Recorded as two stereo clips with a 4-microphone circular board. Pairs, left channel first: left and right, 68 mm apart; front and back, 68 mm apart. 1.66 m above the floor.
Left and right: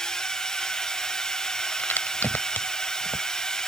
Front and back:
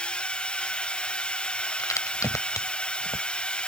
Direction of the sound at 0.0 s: 30° left.